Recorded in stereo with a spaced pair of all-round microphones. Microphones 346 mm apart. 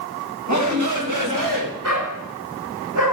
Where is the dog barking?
60° right (ahead or behind), 7 m.